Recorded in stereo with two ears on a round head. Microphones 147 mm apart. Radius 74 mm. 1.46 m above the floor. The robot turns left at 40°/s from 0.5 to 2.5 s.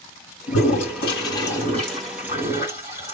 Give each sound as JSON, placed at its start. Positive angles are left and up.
{"t": 0.5, "sound": "a toilet flushing", "azimuth_deg": 60, "distance_m": 2.5}